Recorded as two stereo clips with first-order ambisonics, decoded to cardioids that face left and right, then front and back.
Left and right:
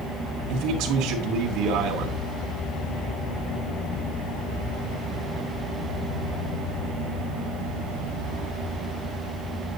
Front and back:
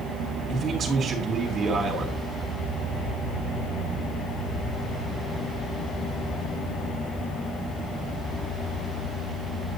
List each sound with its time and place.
0.5 s a man speaking: 115° right, 2.5 m